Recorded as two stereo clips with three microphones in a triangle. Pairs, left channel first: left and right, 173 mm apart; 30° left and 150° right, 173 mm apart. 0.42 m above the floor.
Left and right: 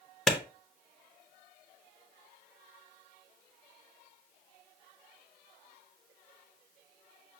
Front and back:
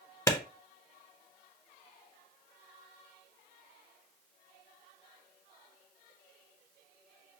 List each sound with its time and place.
0.3 s a clap: 5° left, 0.7 m